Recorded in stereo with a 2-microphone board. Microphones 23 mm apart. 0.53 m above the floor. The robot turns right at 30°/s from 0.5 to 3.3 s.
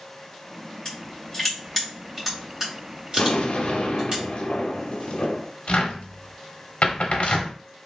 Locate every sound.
0.8 s crushing: 30° left (ahead or behind), 1.7 m; by 4.2 s 40° right (ahead or behind), 1.7 m
3.2 s an explosion: 60° left (ahead or behind), 0.5 m
5.7 s a cupboard door: 75° left (ahead or behind), 0.6 m